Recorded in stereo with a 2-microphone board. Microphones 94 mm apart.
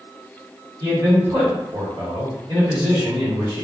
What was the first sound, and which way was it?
A man speaking, 60° right (ahead or behind).